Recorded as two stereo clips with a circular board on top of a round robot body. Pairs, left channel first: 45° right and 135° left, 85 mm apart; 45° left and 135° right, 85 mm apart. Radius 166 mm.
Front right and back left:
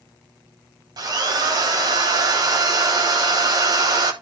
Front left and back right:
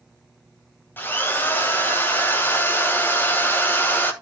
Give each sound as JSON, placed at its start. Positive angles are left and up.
{"t": 1.0, "sound": "a drill", "azimuth_deg": 110, "distance_m": 2.5}